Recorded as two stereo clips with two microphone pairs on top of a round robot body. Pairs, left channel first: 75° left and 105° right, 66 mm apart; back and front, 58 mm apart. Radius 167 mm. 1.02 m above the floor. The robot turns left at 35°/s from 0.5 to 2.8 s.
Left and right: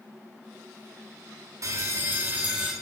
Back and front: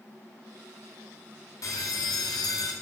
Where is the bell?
150° right, 1.0 m; by 2.7 s 170° left, 1.0 m.